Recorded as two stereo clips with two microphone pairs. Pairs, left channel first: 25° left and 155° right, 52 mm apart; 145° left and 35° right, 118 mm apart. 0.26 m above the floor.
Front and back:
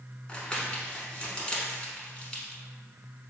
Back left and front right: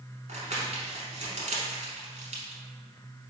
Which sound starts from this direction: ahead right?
Crumpling, at 0.3 s.